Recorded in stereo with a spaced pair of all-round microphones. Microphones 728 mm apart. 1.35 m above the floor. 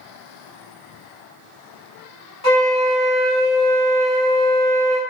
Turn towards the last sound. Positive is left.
turn(degrees=55)  # may be behind; listen again after turning